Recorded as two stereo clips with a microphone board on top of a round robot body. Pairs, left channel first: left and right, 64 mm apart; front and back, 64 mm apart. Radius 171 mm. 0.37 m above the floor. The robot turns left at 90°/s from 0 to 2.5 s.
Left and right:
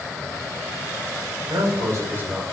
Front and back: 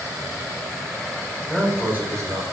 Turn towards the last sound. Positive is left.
turn(degrees=-175)